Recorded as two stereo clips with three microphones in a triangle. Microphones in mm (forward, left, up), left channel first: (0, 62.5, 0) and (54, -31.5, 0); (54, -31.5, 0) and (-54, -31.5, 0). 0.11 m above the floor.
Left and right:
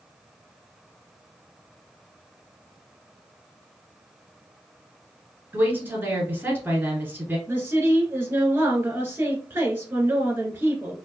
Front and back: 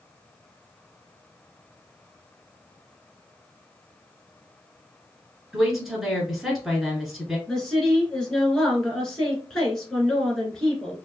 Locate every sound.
5.5 s a woman speaking: 95° right, 1.2 m
7.5 s a woman speaking: 75° right, 1.6 m